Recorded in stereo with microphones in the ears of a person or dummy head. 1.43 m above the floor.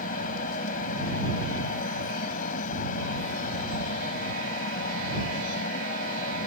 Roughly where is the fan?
Left.